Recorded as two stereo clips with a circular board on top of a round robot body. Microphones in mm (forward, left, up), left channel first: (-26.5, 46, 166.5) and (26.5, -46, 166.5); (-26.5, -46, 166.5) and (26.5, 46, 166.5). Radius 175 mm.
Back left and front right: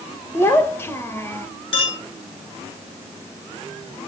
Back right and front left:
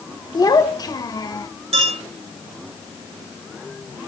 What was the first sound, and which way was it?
A child speaking, 175° right.